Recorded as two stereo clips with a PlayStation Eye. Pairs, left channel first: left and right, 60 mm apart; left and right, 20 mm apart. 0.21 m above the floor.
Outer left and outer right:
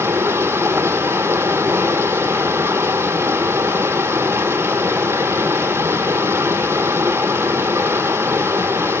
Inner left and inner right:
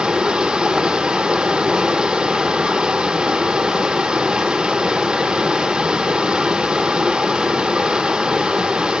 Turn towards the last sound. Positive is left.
turn(degrees=-45)  # may be behind; listen again after turning